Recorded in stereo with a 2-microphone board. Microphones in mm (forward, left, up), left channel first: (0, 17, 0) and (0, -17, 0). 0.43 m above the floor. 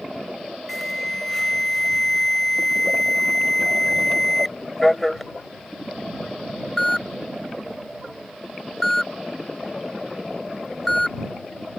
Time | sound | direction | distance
0.7 | an alarm | 10° left (ahead or behind) | ?